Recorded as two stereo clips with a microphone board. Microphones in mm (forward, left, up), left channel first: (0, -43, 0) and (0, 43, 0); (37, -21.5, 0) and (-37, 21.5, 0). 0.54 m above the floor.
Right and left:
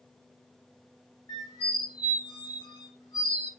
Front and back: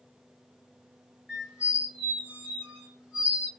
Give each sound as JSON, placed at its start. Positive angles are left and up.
{"t": 1.3, "sound": "a squeak", "azimuth_deg": -130, "distance_m": 1.5}